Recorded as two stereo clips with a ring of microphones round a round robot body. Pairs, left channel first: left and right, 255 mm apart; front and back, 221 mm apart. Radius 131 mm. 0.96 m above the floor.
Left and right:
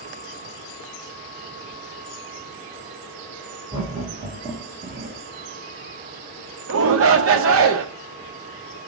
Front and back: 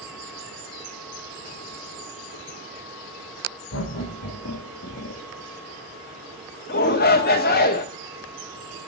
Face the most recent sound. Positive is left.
turn(degrees=-55)